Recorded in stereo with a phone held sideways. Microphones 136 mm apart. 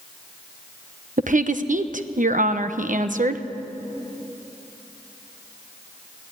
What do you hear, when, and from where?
1.2 s a woman speaking: 70° right (ahead or behind), 1.0 m